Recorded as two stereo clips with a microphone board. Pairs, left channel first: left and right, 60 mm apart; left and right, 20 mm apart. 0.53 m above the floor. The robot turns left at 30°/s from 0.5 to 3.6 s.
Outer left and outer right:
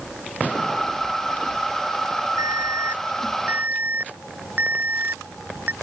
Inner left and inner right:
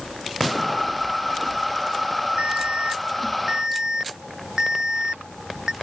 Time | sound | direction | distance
2.4 | an alarm | 105° right | ?